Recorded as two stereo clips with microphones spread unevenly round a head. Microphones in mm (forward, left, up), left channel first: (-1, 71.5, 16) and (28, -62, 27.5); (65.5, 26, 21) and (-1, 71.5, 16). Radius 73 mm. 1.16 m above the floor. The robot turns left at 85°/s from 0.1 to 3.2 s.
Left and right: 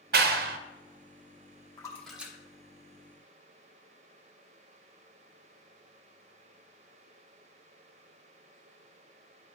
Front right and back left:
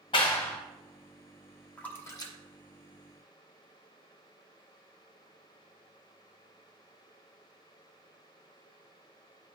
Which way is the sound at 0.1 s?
75° right.